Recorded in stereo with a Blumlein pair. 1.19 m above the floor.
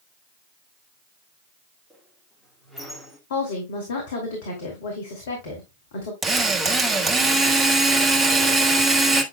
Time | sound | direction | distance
1.9 | a squeak | 5° left | 2.5 m
3.3 | a woman speaking | 55° left | 2.5 m
6.2 | a drill | 10° right | 1.6 m